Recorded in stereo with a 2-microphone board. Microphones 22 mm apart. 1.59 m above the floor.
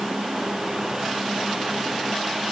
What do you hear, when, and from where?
Only background noise.